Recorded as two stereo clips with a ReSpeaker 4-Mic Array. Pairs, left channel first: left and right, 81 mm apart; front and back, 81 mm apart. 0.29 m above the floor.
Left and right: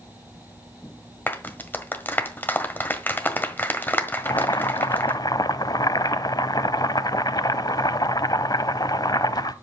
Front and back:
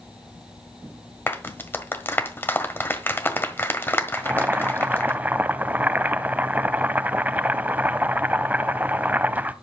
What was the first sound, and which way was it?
A clap, 40° left.